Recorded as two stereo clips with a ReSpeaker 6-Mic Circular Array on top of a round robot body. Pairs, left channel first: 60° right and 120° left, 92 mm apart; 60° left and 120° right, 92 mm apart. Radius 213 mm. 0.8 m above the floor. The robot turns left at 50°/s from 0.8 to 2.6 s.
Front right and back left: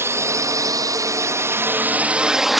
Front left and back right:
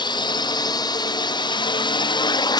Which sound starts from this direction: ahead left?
A drone, at 0.0 s.